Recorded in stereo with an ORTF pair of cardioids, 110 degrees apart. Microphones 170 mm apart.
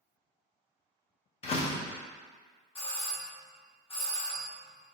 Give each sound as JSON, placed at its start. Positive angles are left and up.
{"t": 1.4, "sound": "a door slam", "azimuth_deg": 40, "distance_m": 0.6}
{"t": 2.8, "sound": "a doorbell", "azimuth_deg": 35, "distance_m": 1.1}